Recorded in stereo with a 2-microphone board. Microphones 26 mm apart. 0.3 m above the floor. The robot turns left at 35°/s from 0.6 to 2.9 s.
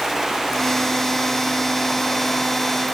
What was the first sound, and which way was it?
Only background noise.